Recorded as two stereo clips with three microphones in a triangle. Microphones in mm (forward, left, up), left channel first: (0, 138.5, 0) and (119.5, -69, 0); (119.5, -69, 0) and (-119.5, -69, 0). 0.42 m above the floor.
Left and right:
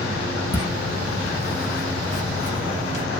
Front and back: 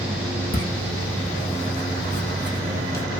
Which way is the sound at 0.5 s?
40° left.